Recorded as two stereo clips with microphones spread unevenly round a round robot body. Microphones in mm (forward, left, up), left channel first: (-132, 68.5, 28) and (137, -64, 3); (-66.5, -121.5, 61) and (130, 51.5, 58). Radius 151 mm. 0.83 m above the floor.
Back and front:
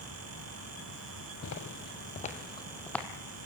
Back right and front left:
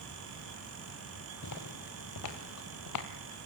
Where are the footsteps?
170° right, 1.7 m; by 3.1 s 120° right, 1.8 m.